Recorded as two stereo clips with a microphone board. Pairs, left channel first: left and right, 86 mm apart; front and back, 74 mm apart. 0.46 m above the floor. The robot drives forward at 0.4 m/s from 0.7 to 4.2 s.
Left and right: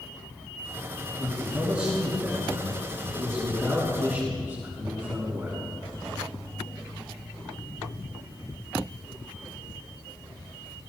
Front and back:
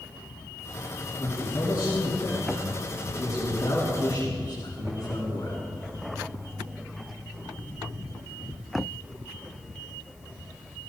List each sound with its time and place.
1.2 s a man speaking: 30° right, 5 m; by 5.6 s 40° right, 4 m